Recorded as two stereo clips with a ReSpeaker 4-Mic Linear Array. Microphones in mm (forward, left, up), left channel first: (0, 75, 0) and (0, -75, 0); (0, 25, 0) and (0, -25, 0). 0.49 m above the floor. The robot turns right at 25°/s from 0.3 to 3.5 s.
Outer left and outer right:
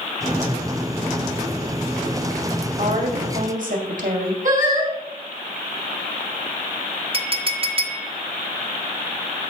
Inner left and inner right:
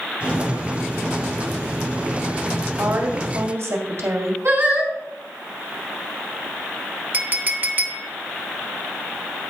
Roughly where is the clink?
Right.